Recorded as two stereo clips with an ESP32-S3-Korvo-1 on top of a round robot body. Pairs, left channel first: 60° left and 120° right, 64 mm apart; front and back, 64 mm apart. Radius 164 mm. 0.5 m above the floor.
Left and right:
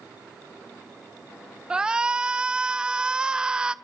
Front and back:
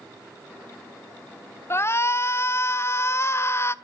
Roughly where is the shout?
Ahead right.